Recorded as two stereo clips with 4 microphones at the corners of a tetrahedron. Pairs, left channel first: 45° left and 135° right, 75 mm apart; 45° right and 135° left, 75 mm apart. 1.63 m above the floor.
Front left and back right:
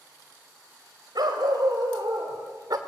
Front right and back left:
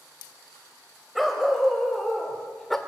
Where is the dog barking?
135° right, 3 m; by 2.8 s 130° right, 1.9 m.